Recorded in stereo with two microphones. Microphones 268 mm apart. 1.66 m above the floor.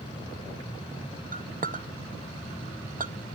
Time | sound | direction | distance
1.3 | a clink | 30° right (ahead or behind) | 0.6 m